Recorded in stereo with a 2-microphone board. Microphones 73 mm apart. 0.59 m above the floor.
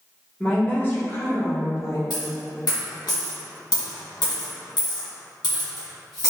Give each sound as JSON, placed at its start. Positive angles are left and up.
{"t": 0.4, "sound": "a woman speaking", "side_deg": 15, "distance_m": 1.0}
{"t": 2.1, "sound": "a dropped coin", "side_deg": 80, "distance_m": 1.5}